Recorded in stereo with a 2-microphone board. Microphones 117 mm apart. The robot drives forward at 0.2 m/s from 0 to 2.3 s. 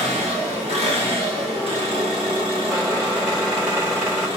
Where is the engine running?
70° right (ahead or behind), 1.0 m; by 4.4 s 50° right (ahead or behind), 1.2 m.